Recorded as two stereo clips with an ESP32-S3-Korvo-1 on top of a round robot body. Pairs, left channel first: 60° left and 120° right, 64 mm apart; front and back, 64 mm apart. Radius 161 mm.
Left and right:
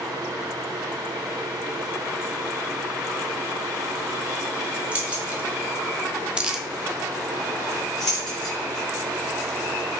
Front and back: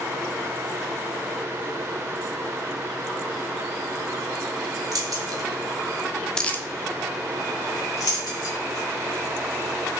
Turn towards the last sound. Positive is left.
turn(degrees=-25)